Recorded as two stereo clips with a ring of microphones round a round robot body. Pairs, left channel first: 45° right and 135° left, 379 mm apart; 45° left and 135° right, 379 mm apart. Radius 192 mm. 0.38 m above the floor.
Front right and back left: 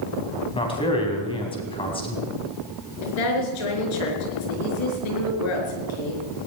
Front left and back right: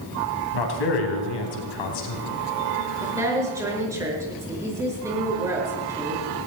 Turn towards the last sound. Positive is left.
turn(degrees=-50)